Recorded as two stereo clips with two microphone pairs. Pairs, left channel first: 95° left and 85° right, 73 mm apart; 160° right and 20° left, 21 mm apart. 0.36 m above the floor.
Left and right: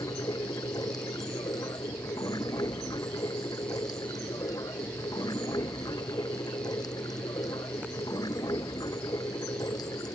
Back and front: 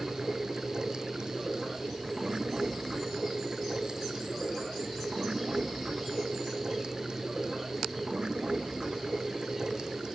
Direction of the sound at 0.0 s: 70° left.